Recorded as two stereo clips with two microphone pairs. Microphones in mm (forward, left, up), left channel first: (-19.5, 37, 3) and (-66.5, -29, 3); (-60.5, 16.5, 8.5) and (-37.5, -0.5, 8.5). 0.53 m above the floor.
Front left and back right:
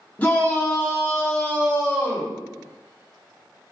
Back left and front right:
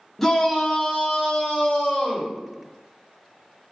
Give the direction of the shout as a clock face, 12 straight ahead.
9 o'clock.